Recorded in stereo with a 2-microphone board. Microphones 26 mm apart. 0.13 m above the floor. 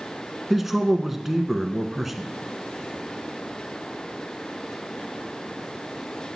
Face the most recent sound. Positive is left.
turn(degrees=-10)  # may be behind; listen again after turning